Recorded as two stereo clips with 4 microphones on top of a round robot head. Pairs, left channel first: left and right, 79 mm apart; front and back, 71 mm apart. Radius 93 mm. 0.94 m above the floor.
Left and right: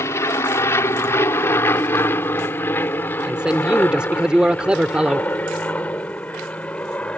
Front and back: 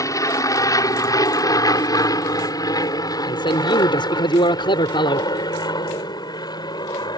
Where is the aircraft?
35° left; by 7.2 s 15° left.